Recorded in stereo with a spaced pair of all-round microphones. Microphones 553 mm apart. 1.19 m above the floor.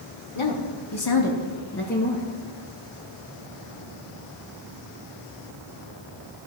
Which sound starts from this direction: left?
A woman speaking, at 0.3 s.